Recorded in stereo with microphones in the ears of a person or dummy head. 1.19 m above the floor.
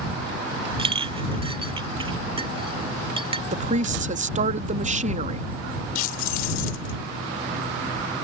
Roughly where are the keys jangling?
Left.